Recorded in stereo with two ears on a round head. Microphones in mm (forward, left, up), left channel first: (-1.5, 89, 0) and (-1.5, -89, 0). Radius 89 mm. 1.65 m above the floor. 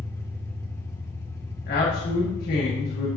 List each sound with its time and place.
0.0 s an engine running: 15° left (ahead or behind), 1.8 m
1.7 s a man speaking: 50° left (ahead or behind), 2.0 m